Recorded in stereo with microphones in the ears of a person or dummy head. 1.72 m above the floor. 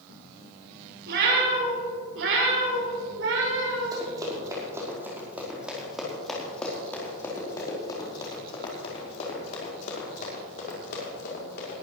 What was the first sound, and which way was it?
A cat meowing, 65° right (ahead or behind).